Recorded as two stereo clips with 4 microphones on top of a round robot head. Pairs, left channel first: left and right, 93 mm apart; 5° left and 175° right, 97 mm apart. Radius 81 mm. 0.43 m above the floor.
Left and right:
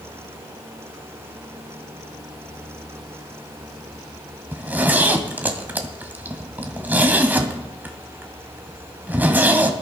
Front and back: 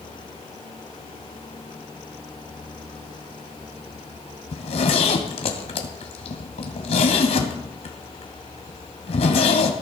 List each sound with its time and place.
4.5 s a zipper: 20° right, 2.0 m